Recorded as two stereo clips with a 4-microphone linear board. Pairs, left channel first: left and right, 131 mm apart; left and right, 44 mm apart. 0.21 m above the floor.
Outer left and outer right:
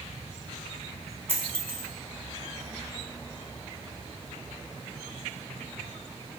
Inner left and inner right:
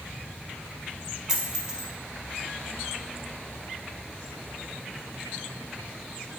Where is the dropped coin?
15° right (ahead or behind), 0.8 m.